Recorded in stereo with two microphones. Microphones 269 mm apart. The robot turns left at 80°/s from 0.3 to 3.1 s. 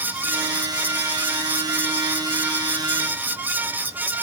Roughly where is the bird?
I don't hear a bird.